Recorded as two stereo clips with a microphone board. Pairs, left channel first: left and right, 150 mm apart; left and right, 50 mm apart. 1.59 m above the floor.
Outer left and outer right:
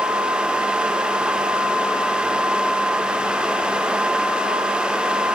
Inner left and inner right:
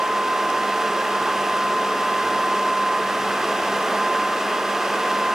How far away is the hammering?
I don't hear hammering.